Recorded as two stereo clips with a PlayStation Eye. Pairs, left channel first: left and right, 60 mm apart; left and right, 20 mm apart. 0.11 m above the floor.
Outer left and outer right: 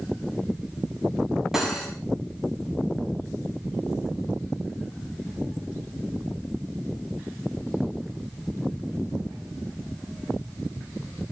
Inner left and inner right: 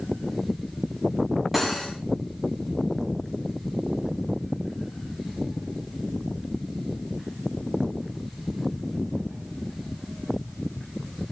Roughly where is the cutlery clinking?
Centre.